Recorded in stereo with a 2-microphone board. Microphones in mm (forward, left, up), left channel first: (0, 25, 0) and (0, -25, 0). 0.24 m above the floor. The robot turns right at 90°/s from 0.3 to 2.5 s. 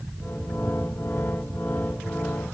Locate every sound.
Only background noise.